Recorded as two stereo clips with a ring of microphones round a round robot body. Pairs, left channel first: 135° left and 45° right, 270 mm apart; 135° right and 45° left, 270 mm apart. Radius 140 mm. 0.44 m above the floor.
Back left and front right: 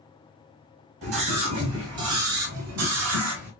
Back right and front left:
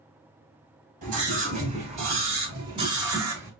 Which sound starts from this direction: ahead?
A scream, at 1.0 s.